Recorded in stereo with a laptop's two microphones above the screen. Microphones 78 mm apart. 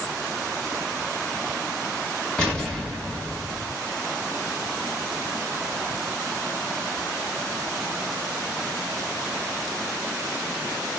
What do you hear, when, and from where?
2.4 s an explosion: 10° left (ahead or behind), 1.2 m